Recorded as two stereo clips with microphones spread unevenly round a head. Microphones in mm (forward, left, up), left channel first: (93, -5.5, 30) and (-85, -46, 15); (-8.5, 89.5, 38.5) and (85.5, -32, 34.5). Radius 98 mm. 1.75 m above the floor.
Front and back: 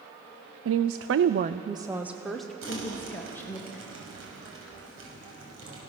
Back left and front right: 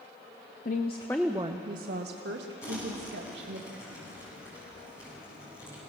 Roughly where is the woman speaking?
Behind.